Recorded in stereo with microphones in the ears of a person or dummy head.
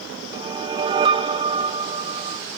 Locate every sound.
0.3 s a whoosh: 25° right (ahead or behind), 0.6 m